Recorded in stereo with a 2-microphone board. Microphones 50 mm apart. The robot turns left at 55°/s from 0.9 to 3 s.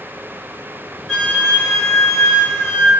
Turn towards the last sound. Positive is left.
turn(degrees=70)